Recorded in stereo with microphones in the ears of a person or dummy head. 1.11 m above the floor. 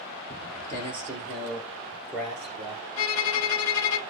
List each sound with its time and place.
0.3 s footsteps: 20° left (ahead or behind), 1.3 m; by 2.8 s 5° right (ahead or behind), 2.5 m
3.0 s a violin: 75° left (ahead or behind), 1.0 m